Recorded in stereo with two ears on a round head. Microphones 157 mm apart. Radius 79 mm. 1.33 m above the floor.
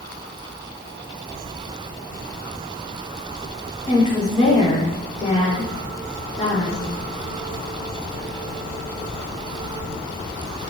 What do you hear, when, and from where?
3.9 s a woman speaking: 20° left (ahead or behind), 3.5 m